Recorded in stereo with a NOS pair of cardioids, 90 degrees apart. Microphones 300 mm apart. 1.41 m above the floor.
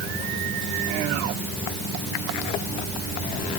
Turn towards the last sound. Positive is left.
No sound to turn to.